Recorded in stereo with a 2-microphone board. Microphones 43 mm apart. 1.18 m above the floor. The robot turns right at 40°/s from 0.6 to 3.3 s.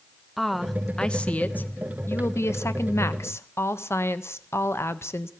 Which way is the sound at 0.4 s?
Straight ahead.